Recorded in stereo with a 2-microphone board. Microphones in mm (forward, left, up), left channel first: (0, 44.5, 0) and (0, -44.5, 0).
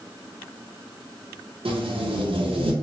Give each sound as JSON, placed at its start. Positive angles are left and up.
{"t": 1.6, "sound": "tape being pulled", "side_deg": -80, "distance_m": 0.5}